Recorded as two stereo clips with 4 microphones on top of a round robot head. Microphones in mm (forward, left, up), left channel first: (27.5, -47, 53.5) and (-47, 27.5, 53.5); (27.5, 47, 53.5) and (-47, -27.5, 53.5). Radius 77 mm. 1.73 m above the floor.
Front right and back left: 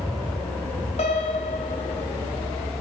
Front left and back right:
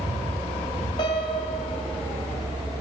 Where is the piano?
10° right, 0.9 m.